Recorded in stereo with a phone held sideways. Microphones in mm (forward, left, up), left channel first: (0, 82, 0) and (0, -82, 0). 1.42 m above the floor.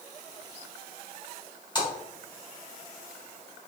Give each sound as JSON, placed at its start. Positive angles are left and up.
{"t": 1.8, "sound": "a splash", "side_deg": 30, "distance_m": 1.8}